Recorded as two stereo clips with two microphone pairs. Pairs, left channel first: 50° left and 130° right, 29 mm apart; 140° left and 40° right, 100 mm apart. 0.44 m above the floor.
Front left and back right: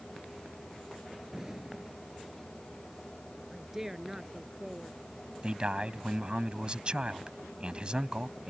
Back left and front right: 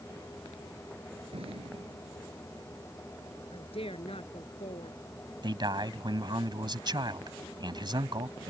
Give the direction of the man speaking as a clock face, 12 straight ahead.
3 o'clock.